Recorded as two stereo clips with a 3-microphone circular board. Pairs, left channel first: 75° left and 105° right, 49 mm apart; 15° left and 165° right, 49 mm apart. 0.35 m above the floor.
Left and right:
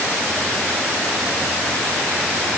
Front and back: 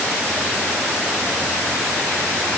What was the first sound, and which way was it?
Only background noise.